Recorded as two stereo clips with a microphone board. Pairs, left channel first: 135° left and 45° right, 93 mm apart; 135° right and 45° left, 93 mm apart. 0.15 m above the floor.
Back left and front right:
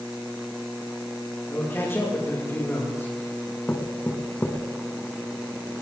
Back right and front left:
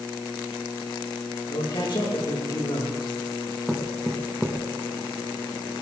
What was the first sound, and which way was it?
A man speaking, 160° right.